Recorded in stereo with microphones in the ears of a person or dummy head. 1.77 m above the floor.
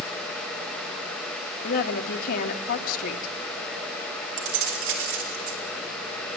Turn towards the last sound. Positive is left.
turn(degrees=-80)